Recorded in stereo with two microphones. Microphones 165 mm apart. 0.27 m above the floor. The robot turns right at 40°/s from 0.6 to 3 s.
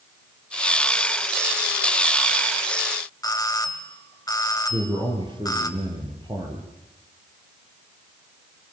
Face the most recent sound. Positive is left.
turn(degrees=-30)  # may be behind; listen again after turning